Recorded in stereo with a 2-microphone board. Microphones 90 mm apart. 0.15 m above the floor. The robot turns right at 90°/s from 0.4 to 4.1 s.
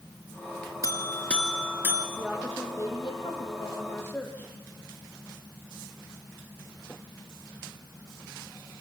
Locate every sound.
0.8 s a buzzer: 120° left, 1.9 m; by 2.1 s 130° right, 1.9 m
2.2 s a woman speaking: 20° right, 5 m; by 4.5 s 155° left, 5 m